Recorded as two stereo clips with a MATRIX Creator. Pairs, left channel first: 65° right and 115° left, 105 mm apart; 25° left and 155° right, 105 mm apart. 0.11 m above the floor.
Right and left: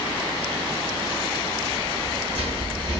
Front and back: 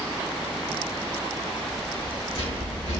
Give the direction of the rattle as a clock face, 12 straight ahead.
10 o'clock.